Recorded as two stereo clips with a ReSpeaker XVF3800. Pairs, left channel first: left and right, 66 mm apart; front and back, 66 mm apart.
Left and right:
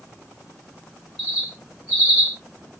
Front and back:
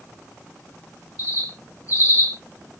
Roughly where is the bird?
Ahead.